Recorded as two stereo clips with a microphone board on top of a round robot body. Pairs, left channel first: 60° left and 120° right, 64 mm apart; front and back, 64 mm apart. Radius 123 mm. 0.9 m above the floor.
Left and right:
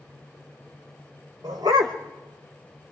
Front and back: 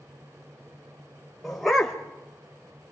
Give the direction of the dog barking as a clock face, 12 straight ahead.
3 o'clock.